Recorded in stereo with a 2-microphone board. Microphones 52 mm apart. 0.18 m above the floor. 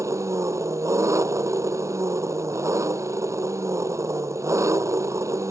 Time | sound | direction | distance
0.0 | an engine running | 75° right (ahead or behind) | ?